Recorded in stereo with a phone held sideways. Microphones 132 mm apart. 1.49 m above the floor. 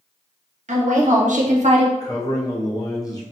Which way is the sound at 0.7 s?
65° right (ahead or behind).